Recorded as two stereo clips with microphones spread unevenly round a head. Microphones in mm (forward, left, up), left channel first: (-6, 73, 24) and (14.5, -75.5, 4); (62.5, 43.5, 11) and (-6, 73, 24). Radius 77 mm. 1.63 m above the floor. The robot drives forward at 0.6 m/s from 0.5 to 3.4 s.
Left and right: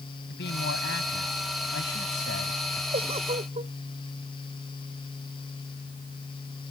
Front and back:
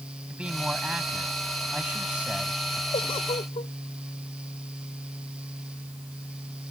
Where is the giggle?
30° right.